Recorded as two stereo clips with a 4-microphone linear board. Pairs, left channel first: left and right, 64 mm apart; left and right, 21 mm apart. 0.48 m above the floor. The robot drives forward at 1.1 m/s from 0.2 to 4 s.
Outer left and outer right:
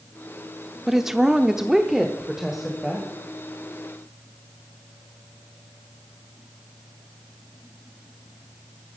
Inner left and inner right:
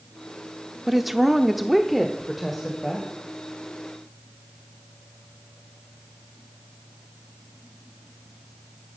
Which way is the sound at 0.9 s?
5° right (ahead or behind).